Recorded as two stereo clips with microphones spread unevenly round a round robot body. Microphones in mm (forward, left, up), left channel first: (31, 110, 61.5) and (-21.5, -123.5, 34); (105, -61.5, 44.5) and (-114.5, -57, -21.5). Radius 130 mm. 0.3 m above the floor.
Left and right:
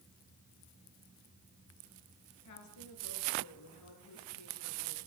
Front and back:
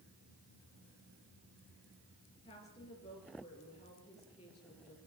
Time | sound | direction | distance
2.5 | a woman speaking | 70° left | 6 m